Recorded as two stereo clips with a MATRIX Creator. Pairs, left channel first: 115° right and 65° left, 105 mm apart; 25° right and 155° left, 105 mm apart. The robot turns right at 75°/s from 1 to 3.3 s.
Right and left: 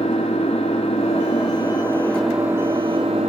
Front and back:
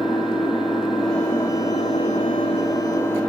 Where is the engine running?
115° right, 2.5 m; by 3.3 s 55° left, 2.5 m.